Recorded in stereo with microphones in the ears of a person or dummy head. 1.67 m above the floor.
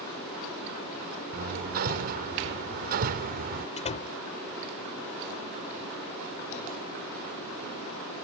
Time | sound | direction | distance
1.3 | hammering | 50° right (ahead or behind) | ?
3.8 | a door slam | 30° left (ahead or behind) | ?